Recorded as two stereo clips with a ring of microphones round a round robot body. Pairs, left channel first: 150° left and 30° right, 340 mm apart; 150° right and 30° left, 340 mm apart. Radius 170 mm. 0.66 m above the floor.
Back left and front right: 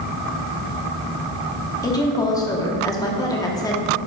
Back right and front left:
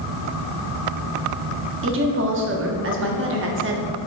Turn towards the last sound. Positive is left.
turn(degrees=75)